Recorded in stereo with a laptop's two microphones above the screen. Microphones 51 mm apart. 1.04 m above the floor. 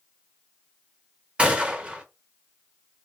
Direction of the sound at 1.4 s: 20° right (ahead or behind).